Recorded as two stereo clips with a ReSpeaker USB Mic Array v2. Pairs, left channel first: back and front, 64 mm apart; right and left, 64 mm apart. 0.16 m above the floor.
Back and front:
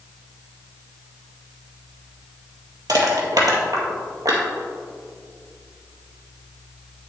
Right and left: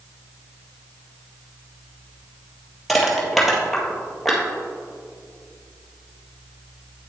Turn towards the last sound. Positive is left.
turn(degrees=-5)